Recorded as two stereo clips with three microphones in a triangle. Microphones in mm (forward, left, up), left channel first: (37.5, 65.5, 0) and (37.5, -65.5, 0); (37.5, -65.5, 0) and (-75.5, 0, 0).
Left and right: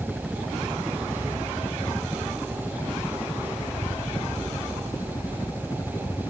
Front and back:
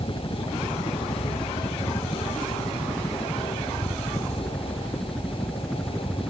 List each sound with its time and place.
0.0 s a helicopter: straight ahead; by 6.3 s 60° left